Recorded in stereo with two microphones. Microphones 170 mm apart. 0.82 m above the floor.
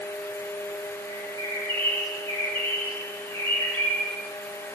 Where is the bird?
30° right (ahead or behind), 5 m.